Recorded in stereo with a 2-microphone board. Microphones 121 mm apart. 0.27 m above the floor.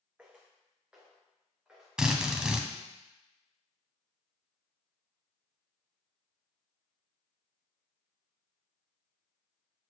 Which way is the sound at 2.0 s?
5° right (ahead or behind).